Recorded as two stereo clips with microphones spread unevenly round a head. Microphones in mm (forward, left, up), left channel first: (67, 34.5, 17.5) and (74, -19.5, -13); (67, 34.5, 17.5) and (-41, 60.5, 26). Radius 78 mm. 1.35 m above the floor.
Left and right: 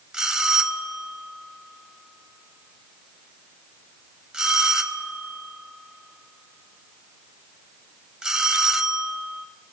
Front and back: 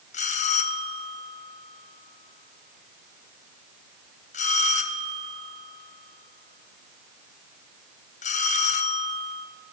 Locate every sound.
0.1 s a bell: 5° right, 0.8 m